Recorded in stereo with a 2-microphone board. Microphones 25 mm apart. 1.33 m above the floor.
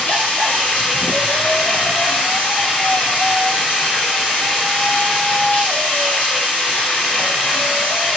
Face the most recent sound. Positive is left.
turn(degrees=85)